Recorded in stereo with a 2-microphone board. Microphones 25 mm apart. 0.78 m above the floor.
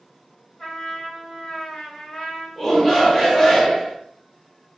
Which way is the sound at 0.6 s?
40° left (ahead or behind).